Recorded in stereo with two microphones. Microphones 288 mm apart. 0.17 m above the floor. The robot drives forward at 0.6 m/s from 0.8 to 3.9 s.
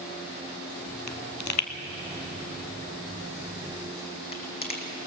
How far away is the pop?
About 1.1 m.